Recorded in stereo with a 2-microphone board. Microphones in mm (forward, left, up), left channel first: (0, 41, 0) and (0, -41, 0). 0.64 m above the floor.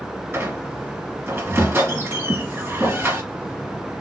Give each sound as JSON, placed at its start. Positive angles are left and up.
{"t": 0.3, "sound": "a squeak", "side_deg": -25, "distance_m": 1.7}